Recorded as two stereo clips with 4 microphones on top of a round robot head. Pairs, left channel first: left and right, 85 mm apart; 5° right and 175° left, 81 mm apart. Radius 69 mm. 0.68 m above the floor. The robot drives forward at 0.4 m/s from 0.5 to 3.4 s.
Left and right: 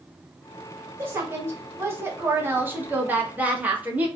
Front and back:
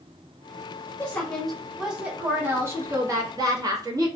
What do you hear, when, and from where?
1.0 s a woman speaking: 60° right, 0.8 m; by 4.1 s 155° right, 1.1 m